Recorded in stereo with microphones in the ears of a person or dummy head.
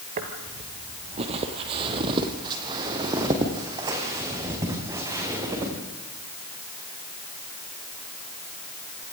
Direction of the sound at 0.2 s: 40° right (ahead or behind).